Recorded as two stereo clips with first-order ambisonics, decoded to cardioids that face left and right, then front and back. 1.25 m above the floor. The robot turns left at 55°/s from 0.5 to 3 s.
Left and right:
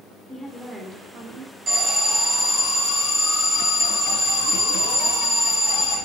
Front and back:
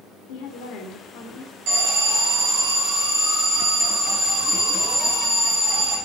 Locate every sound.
0.3 s a woman speaking: 5° right, 3.5 m; by 1.5 s 60° right, 3.5 m
1.7 s an alarm: 155° right, 6 m; by 6.0 s 130° left, 6 m